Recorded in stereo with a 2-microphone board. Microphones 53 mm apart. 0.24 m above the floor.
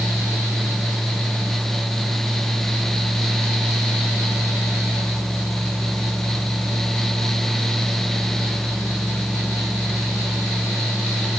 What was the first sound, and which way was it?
Only background noise.